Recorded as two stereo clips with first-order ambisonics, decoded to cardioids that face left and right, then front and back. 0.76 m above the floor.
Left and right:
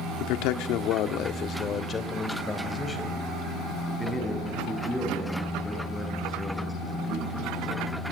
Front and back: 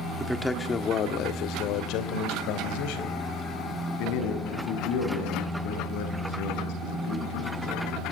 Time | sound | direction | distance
0.2 | a man speaking | 100° left | 1.5 m